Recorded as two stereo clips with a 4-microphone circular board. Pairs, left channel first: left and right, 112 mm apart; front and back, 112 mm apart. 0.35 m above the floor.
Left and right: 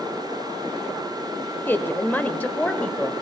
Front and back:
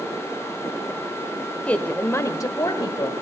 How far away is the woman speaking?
About 1.0 m.